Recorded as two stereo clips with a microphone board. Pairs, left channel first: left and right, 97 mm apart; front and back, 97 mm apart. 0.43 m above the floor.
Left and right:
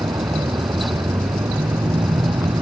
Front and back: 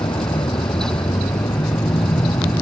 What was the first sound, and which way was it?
A vehicle, 40° right.